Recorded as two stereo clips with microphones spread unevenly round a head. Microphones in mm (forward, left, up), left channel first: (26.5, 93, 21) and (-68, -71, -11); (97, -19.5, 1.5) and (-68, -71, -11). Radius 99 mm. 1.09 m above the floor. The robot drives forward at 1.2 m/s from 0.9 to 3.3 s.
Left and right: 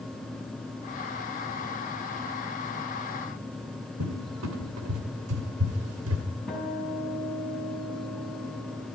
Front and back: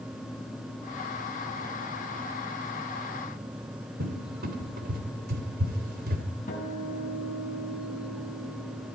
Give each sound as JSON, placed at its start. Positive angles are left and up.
{"t": 4.0, "sound": "a cupboard door", "azimuth_deg": -130, "distance_m": 2.5}
{"t": 6.5, "sound": "a guitar", "azimuth_deg": -25, "distance_m": 6.5}